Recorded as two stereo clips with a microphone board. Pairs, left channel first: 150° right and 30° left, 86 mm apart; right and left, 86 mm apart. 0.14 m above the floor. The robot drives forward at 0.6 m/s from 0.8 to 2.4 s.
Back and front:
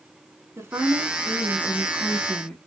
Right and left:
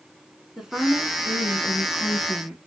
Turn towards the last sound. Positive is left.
turn(degrees=160)